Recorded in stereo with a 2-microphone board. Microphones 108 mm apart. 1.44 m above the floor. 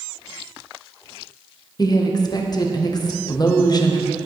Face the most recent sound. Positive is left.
turn(degrees=35)  # may be behind; listen again after turning